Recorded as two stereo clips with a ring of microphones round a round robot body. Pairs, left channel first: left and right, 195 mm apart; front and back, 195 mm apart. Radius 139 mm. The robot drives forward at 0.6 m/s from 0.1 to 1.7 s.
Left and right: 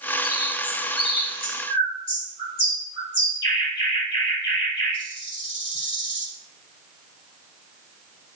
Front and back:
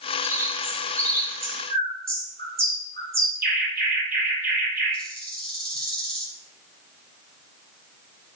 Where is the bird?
135° left, 3.5 m; by 6.3 s 140° left, 4 m.